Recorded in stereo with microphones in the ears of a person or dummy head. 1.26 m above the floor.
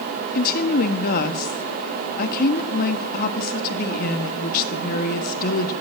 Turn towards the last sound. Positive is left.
turn(degrees=50)  # may be behind; listen again after turning